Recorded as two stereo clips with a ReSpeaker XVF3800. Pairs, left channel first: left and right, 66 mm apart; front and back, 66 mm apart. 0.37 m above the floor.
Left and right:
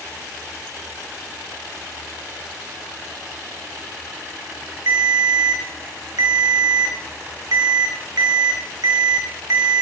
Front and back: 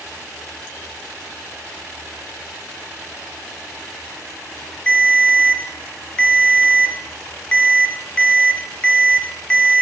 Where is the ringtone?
75° right, 0.6 m.